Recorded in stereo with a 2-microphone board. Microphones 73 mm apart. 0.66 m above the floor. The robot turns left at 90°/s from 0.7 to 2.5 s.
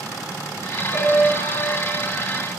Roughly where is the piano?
Ahead.